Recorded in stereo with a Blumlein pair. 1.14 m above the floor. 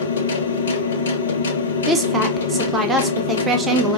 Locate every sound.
0.0 s a machine running: 65° left, 0.9 m
1.9 s a woman speaking: 15° right, 1.0 m